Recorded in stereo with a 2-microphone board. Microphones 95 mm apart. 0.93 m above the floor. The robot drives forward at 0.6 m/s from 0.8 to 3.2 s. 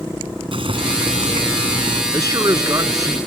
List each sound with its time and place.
0.5 s boiling: 70° right (ahead or behind); by 2.0 s 65° right (ahead or behind)
2.1 s a man speaking: 40° right (ahead or behind)